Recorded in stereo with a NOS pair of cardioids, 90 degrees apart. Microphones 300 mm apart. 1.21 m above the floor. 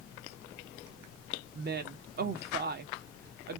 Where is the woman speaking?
35° right, 0.9 m.